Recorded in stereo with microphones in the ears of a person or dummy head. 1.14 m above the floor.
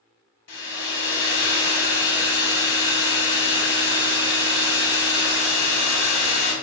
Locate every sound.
0.5 s a hair dryer: 60° left (ahead or behind), 0.9 m